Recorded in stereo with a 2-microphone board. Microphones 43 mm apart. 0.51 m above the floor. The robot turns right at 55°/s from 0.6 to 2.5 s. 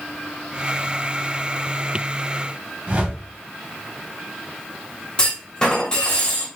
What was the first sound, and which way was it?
A whoosh, 30° right (ahead or behind).